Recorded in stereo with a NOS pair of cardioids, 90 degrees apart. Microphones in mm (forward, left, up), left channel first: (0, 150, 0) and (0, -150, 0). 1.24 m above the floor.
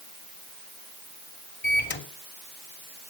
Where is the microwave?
35° left, 3 m.